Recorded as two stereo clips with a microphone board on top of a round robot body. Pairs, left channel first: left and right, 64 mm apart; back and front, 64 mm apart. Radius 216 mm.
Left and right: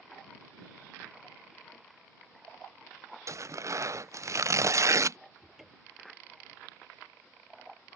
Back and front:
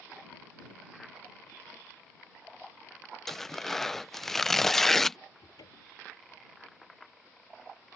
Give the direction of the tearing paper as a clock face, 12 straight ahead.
3 o'clock.